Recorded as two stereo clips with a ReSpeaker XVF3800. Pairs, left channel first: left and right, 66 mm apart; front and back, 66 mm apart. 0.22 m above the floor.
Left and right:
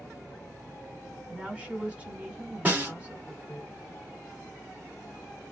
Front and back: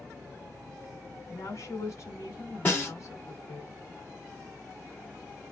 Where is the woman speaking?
25° right, 1.6 m.